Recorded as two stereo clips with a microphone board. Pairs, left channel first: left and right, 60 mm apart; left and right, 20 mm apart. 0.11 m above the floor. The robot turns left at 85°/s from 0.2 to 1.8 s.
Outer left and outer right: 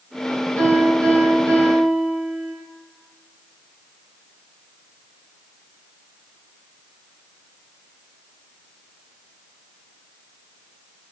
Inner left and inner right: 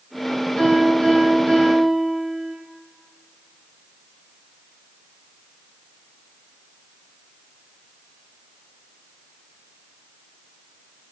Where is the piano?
45° left, 1.9 m; by 2.5 s 60° right, 1.9 m.